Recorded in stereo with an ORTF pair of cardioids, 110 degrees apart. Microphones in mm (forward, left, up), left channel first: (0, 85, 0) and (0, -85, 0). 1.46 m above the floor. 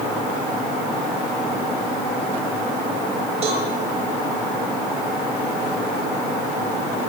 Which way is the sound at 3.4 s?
40° right.